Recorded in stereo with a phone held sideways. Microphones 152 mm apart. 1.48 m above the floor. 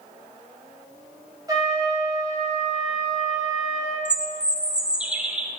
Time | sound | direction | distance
1.5 | a trumpet | 25° right (ahead or behind) | 2.5 m
4.0 | a bird | 5° right (ahead or behind) | 0.9 m